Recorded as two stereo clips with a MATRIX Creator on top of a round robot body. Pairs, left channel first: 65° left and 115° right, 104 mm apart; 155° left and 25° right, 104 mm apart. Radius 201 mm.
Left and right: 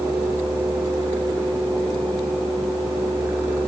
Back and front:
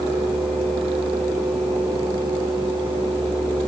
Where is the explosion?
No explosion in this recording.